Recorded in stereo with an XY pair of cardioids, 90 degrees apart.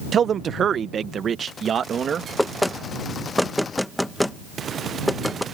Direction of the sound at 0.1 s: 55° right.